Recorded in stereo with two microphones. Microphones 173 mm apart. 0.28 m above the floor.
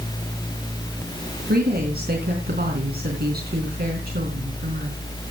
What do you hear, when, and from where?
1.5 s a woman speaking: 65° right (ahead or behind), 3.5 m